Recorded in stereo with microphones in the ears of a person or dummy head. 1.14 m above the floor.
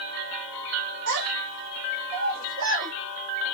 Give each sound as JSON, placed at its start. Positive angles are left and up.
{"t": 1.1, "sound": "a child speaking", "side_deg": -60, "distance_m": 0.8}